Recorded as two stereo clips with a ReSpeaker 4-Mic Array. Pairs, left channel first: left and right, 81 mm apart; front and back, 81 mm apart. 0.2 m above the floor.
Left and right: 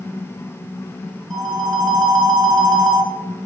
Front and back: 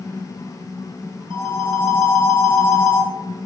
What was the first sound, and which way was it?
A phone ringing, straight behind.